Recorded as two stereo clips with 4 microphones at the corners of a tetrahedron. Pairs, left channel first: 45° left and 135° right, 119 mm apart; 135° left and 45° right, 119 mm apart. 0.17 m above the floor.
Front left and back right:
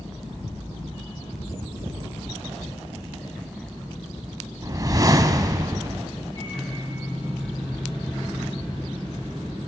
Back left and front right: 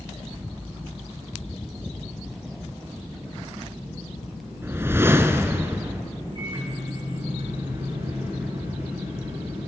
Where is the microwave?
Straight ahead, 6.5 m.